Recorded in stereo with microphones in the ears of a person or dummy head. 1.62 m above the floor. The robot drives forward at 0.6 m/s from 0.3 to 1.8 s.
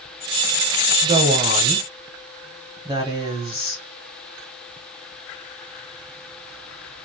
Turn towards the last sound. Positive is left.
turn(degrees=-20)  # may be behind; listen again after turning